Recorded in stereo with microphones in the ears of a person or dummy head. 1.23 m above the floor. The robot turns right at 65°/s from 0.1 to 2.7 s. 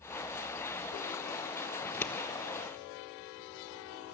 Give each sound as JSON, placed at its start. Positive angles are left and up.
{"t": 1.8, "sound": "scissors", "side_deg": -5, "distance_m": 1.4}